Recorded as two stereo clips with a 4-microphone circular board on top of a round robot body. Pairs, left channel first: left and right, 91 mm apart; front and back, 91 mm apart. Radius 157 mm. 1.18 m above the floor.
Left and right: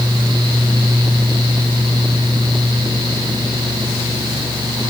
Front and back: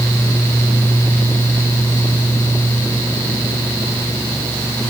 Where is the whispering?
I don't hear whispering.